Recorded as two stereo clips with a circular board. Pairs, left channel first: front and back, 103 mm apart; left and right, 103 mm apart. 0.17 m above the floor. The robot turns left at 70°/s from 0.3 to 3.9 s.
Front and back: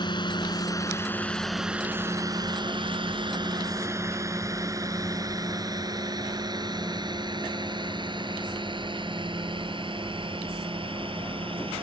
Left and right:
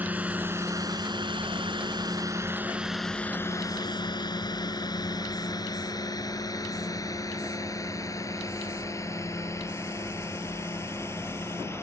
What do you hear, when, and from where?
0.0 s a drone: 20° right; by 11.8 s 155° left